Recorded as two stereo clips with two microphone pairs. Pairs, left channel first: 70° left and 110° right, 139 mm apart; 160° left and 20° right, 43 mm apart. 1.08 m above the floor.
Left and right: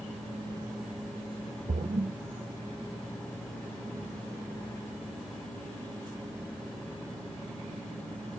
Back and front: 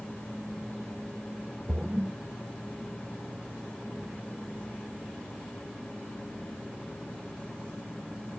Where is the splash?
85° right, 0.6 m.